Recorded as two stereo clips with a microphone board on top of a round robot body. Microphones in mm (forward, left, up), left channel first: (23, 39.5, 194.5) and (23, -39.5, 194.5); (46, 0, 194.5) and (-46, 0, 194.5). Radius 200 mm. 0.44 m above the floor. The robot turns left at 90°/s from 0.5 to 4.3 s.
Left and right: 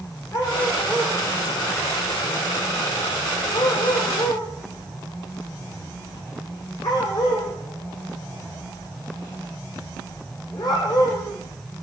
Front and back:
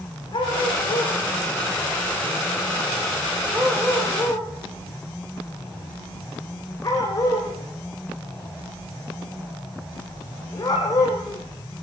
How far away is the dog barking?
About 7.5 m.